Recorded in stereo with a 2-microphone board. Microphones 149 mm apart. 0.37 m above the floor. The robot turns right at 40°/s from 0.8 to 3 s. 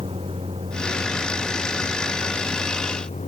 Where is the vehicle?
40° right; by 3.3 s 50° left.